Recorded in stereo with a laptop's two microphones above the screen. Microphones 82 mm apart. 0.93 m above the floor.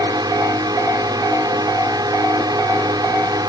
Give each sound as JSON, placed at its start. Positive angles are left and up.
{"t": 0.0, "sound": "a drone", "side_deg": -55}